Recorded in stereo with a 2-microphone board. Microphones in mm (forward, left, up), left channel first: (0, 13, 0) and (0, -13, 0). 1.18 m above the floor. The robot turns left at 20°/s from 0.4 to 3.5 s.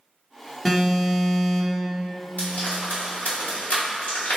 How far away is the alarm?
About 0.8 m.